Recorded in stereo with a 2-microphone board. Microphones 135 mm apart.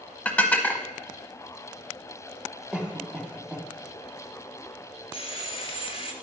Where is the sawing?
45° left (ahead or behind), 0.9 m.